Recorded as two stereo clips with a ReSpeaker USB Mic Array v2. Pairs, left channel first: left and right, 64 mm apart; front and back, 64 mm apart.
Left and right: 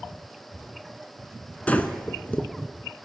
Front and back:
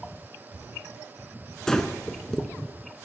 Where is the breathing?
70° left, 0.5 m.